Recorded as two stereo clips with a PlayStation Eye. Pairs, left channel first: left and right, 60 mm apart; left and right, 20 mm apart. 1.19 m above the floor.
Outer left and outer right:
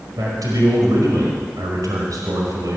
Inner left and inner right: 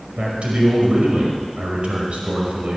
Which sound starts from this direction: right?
A man speaking, at 0.2 s.